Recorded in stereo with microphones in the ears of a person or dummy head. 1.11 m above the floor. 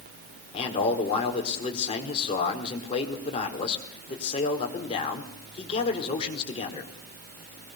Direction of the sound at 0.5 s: 40° left (ahead or behind).